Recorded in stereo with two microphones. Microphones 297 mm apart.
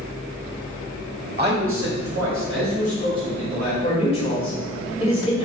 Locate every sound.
1.4 s a man speaking: 30° right (ahead or behind), 1.1 m; by 3.7 s 70° right (ahead or behind), 2.5 m
3.8 s a man speaking: 20° left (ahead or behind), 2.0 m